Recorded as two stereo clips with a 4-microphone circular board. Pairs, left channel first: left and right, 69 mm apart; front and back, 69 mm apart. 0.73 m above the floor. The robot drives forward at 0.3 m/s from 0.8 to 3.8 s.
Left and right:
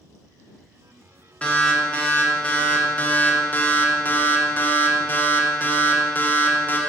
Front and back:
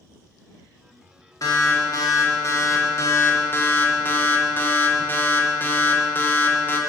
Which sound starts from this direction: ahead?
An alarm, at 1.4 s.